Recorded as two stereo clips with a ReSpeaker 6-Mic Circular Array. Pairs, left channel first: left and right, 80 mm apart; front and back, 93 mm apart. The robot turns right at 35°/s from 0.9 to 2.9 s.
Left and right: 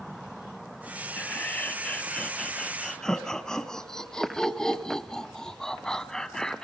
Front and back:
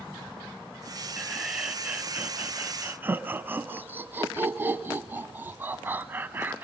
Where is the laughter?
100° left, 1.1 m; by 6.6 s 160° left, 1.1 m.